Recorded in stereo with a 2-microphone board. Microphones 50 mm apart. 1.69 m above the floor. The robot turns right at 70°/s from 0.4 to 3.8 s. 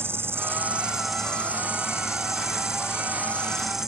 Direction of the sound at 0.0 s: 50° right.